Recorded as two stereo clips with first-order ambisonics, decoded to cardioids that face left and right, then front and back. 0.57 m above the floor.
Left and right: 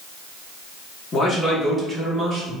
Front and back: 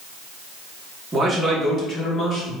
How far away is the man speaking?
About 0.7 m.